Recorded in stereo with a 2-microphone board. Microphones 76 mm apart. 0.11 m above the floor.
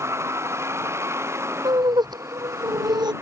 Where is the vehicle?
35° right (ahead or behind).